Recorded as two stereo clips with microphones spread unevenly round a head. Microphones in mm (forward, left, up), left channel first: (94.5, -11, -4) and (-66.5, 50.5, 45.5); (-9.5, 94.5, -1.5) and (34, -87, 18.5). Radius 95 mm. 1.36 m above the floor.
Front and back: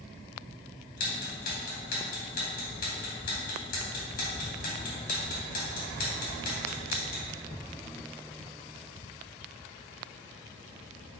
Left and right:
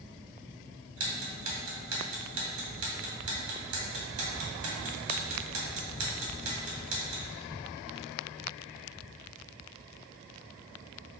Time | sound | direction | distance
1.0 | ticking | 70° right | 2 m